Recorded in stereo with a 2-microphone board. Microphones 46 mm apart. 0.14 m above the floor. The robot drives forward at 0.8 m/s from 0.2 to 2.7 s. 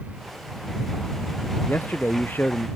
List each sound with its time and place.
1.7 s a man speaking: 45° left (ahead or behind); by 2.7 s 40° left (ahead or behind)